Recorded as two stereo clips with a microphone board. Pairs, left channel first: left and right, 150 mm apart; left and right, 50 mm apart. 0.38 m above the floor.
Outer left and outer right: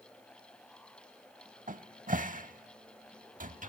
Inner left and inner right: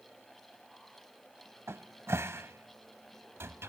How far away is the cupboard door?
About 0.6 m.